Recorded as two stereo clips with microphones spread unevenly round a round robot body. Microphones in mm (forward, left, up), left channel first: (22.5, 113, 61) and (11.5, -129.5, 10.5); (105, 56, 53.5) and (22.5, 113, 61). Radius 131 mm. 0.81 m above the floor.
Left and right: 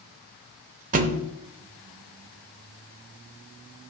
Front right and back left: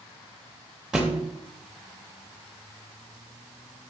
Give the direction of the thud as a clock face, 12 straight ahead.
5 o'clock.